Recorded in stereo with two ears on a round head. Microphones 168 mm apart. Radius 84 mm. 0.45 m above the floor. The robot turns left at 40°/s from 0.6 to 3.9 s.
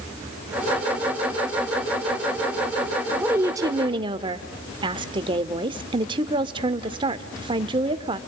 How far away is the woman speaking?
About 1.1 m.